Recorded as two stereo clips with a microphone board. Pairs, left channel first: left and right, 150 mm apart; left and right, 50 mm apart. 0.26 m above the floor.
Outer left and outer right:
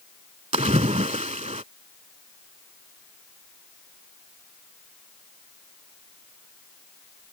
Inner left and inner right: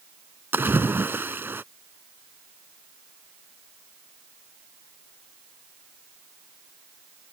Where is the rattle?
No rattle in this recording.